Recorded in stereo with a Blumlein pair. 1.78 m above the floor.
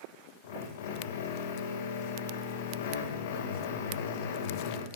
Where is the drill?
55° left, 2.5 m.